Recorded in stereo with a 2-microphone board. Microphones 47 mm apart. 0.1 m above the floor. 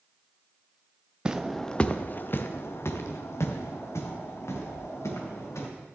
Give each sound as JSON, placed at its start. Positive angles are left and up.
{"t": 1.2, "sound": "footsteps", "side_deg": -20, "distance_m": 0.7}